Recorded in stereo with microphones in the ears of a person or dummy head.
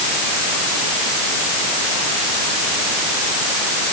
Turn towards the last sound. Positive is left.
No sound to turn to.